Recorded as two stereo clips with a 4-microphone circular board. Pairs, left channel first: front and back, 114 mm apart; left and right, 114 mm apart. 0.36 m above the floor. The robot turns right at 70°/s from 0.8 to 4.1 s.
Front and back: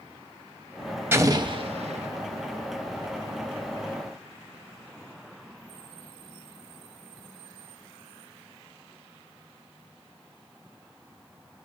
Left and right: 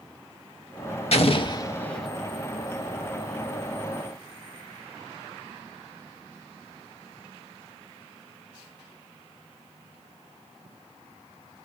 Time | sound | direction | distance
1.1 | an explosion | 110° left | 0.6 m